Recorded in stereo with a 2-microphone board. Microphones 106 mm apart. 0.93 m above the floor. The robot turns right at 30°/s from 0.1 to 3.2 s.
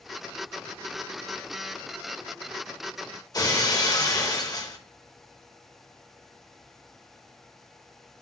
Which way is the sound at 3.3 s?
35° left (ahead or behind).